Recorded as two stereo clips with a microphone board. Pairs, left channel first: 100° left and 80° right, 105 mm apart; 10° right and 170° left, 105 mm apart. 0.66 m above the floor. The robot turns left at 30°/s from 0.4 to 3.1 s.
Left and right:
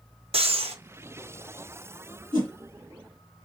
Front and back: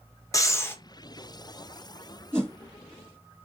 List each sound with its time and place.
0.3 s breathing: 70° right, 0.6 m; by 0.8 s 80° right, 0.6 m
2.3 s a whoosh: 120° right, 2 m; by 2.5 s 125° right, 2 m